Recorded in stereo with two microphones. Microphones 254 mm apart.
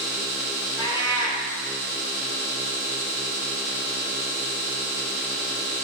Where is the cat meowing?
15° left (ahead or behind), 0.9 m.